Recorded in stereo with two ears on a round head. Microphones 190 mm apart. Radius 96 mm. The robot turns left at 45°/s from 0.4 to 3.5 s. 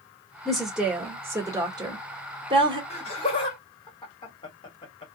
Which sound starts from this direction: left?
Laughter, at 2.9 s.